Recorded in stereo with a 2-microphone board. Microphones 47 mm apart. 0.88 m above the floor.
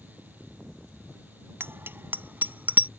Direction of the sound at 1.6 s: 50° right (ahead or behind).